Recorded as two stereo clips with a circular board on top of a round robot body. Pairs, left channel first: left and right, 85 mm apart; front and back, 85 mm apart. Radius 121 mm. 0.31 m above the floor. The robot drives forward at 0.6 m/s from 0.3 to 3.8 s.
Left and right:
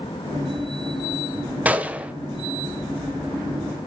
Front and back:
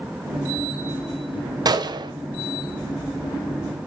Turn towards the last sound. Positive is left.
turn(degrees=-170)